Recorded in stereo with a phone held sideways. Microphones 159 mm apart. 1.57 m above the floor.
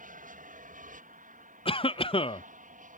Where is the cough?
35° left (ahead or behind).